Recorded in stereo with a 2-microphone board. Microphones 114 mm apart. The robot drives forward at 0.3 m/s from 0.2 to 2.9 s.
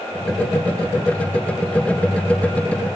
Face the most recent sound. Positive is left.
No sound to turn to.